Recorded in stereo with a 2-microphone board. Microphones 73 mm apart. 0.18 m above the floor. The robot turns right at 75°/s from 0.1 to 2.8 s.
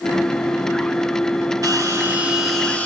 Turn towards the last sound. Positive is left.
turn(degrees=20)